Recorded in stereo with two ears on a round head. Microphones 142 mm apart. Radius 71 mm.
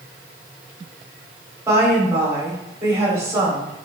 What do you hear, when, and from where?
1.7 s a woman speaking: 20° right (ahead or behind), 3 m